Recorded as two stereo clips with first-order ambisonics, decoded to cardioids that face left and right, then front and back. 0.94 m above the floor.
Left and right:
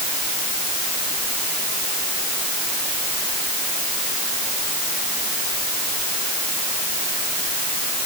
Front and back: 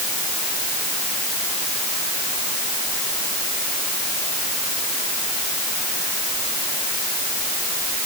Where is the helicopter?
No helicopter in this recording.